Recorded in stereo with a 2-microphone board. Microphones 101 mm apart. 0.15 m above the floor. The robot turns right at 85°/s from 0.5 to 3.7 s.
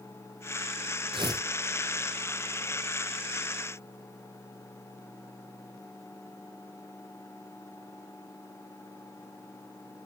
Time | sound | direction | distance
1.1 | tearing paper | 55° right (ahead or behind) | 2 m